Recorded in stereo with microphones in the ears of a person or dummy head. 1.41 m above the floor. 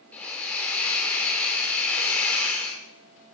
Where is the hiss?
10° left (ahead or behind), 1.9 m.